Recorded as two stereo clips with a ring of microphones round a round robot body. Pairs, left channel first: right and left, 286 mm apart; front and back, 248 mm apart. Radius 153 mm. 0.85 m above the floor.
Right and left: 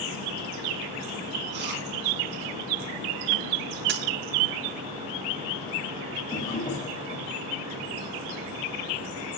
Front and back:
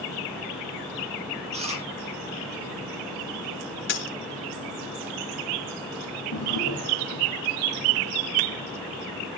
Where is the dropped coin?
40° left, 2 m.